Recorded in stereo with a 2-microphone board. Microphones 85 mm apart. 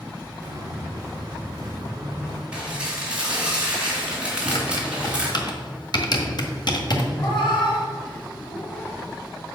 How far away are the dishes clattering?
About 3 m.